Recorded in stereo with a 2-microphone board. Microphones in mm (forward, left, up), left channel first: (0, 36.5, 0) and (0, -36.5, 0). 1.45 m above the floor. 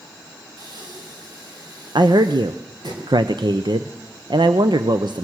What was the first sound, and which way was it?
Breathing, 65° right (ahead or behind).